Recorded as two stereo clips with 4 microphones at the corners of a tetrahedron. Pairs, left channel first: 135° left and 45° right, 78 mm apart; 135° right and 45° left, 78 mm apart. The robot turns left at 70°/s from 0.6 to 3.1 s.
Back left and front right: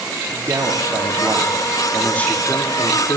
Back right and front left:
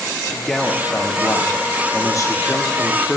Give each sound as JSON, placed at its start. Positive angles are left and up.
{"t": 0.3, "sound": "a man speaking", "azimuth_deg": -50, "distance_m": 0.9}